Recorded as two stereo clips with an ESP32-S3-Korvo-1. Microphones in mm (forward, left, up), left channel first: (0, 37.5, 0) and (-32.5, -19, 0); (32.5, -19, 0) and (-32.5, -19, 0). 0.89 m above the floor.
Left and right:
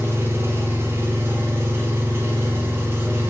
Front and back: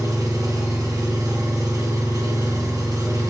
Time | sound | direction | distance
0.0 | an engine running | 170° right | 1.0 m